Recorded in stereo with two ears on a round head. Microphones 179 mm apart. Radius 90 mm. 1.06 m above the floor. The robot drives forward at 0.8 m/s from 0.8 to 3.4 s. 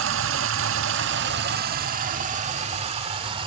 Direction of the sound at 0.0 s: 75° right (ahead or behind).